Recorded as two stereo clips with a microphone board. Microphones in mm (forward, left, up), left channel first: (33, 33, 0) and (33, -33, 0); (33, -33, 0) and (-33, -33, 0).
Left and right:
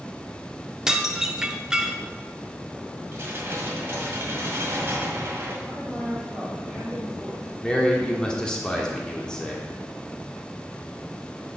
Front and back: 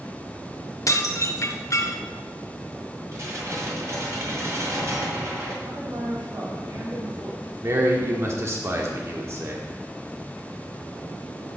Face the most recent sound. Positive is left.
turn(degrees=160)